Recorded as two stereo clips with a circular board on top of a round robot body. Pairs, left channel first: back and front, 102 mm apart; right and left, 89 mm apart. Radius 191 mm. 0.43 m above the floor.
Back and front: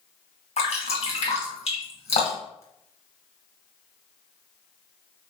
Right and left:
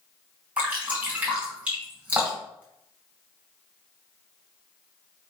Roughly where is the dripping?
Behind.